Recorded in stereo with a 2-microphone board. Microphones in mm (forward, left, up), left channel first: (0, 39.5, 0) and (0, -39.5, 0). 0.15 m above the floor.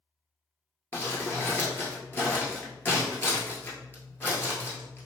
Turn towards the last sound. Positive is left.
turn(degrees=25)  # may be behind; listen again after turning